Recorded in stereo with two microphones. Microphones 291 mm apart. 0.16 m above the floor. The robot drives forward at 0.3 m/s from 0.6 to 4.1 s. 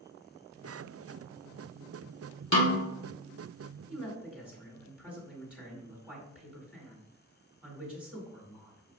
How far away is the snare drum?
About 1.6 m.